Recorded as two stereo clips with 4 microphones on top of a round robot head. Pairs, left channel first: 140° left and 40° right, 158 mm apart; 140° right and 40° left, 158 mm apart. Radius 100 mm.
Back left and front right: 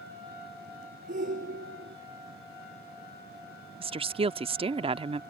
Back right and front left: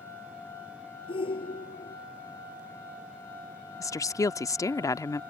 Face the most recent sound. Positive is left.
turn(degrees=-80)